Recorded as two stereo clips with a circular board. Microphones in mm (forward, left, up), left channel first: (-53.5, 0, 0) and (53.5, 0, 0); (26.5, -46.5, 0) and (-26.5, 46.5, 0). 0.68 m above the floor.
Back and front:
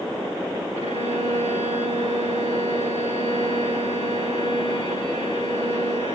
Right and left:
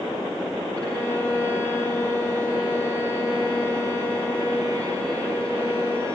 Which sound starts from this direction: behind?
A violin, at 0.8 s.